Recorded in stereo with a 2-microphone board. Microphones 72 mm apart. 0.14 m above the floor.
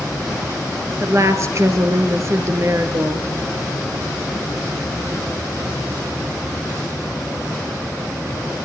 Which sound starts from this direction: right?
A woman speaking, at 1.0 s.